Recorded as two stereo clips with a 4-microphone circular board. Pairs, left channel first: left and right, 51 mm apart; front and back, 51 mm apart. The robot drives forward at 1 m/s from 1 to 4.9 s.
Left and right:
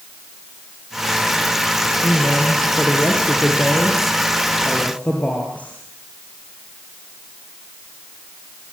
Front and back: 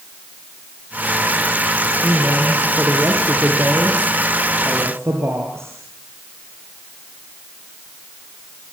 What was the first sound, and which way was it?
A woman speaking, 130° left.